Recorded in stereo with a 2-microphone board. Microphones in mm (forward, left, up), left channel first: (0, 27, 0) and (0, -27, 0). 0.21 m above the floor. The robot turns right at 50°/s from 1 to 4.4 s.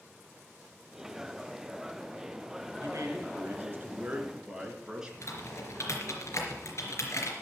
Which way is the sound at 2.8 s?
90° right.